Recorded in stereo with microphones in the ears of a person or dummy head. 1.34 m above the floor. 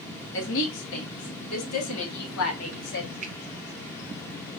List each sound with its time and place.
0.3 s a woman speaking: 70° left (ahead or behind), 2.0 m; by 3.1 s 60° left (ahead or behind), 1.2 m
3.2 s a finger snap: 40° right (ahead or behind), 0.9 m